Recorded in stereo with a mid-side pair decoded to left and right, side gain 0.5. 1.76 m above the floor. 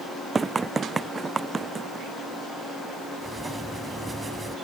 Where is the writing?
20° right.